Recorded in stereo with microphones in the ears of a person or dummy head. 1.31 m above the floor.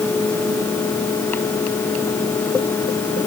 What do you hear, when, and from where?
Only background noise.